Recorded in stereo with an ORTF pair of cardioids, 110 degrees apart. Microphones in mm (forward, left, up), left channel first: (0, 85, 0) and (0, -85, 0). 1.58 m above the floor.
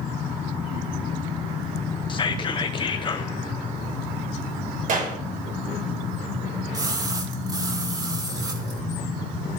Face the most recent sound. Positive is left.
turn(degrees=-25)